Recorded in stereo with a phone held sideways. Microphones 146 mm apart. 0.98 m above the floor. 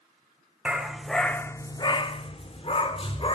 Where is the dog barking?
10° right (ahead or behind), 0.9 m; by 3.4 s 40° left (ahead or behind), 1.3 m.